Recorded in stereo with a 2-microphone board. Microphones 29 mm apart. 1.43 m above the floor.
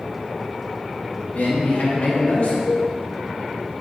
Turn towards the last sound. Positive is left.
turn(degrees=80)